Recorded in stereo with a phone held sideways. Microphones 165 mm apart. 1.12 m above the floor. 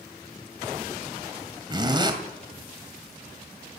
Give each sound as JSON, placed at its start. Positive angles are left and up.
{"t": 1.7, "sound": "a zipper", "side_deg": -30, "distance_m": 2.5}